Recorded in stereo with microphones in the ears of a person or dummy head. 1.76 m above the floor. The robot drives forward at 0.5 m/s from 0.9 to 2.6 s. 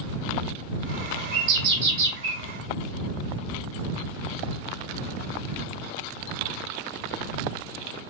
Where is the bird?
55° right (ahead or behind), 1.4 m; by 2.4 s 75° right (ahead or behind), 1.1 m.